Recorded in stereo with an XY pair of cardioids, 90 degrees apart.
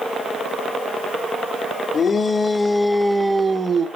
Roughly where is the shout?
Ahead left.